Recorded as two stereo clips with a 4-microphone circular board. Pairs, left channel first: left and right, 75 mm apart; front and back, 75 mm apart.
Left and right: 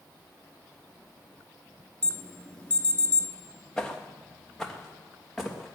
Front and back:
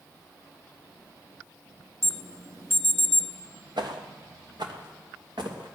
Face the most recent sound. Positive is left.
turn(degrees=180)